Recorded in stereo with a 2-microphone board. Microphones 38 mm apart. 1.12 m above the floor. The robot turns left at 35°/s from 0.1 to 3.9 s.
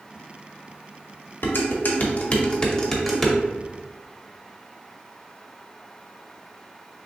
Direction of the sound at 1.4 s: 65° left (ahead or behind).